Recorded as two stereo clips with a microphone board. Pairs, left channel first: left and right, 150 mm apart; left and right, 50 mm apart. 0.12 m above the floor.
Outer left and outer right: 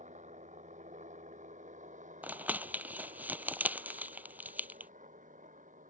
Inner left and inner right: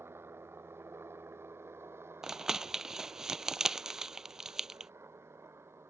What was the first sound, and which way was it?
A helicopter, 50° right (ahead or behind).